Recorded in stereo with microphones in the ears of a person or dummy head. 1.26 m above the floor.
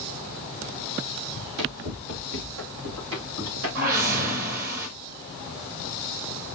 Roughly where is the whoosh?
Right.